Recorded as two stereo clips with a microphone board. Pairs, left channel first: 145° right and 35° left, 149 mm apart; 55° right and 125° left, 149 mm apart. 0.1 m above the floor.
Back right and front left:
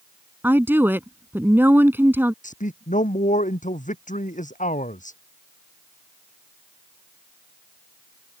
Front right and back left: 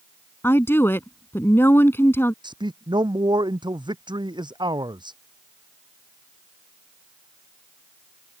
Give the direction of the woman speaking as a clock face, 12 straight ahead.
12 o'clock.